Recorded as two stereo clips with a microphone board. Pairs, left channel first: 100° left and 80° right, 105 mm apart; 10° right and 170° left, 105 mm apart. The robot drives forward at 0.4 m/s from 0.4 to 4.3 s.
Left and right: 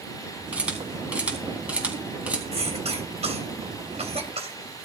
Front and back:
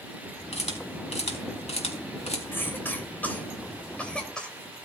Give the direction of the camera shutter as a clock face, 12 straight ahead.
12 o'clock.